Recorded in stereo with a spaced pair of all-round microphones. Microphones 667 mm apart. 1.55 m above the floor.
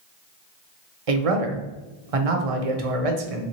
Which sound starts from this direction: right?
A man speaking, at 1.1 s.